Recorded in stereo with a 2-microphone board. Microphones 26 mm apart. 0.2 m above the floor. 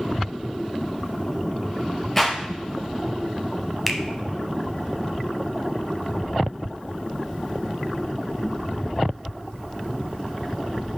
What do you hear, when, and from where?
2.2 s a clap: 10° left (ahead or behind), 3.5 m
3.9 s a finger snap: 5° right (ahead or behind), 0.8 m